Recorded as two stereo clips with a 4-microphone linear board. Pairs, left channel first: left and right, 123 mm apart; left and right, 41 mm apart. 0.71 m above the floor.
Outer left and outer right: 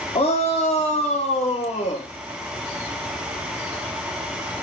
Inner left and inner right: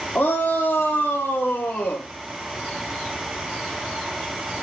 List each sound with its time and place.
0.1 s a shout: 55° left (ahead or behind), 1.3 m; by 2.1 s 75° left (ahead or behind), 2.0 m